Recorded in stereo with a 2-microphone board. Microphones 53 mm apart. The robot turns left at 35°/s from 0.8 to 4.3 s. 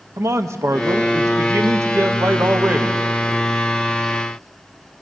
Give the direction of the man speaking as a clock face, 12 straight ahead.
2 o'clock.